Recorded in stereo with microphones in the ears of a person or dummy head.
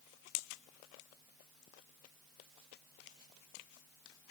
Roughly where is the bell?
No bell in this recording.